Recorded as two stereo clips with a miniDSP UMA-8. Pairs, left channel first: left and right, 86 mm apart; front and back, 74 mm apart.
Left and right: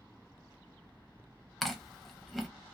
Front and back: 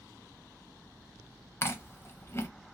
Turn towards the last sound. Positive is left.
turn(degrees=0)